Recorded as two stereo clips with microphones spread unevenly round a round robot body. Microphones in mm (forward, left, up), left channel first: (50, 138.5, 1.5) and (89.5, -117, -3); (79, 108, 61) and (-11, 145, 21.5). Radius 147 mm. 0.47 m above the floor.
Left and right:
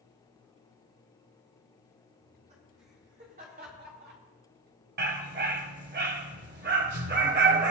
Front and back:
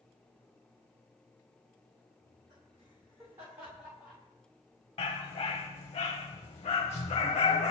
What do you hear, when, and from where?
2.2 s laughter: 150° right, 5.5 m; by 4.2 s 130° right, 2.5 m
5.0 s a dog barking: 35° right, 1.4 m